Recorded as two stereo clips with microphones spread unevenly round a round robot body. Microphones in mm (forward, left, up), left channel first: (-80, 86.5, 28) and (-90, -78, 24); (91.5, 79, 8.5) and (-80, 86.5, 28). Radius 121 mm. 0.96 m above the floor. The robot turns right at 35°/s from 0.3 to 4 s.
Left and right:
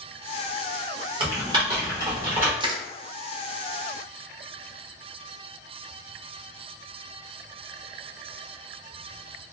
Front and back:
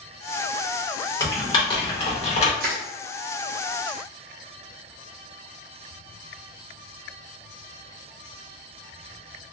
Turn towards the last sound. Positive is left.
turn(degrees=-105)